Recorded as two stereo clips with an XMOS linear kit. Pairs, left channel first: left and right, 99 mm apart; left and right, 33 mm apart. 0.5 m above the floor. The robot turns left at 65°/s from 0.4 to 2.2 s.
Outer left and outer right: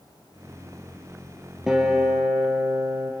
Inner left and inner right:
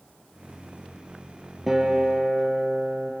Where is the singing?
No singing in this recording.